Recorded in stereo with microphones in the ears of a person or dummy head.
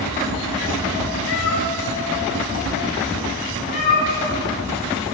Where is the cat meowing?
70° left (ahead or behind), 2.5 m; by 4.4 s 40° left (ahead or behind), 5.5 m.